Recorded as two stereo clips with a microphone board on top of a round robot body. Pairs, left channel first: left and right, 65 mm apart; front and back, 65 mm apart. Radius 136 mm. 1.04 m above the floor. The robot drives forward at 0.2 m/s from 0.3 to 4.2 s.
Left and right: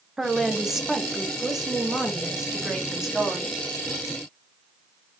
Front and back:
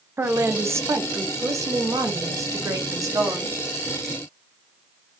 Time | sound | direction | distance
0.2 | a woman speaking | 170° right | 0.7 m